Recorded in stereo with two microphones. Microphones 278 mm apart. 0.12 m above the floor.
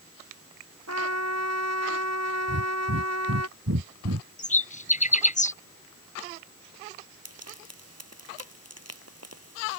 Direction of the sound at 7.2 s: 60° right (ahead or behind).